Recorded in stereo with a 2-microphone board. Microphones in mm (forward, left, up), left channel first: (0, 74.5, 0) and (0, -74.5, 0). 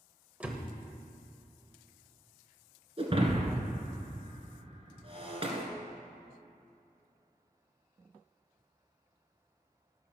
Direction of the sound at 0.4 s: 10° right (ahead or behind).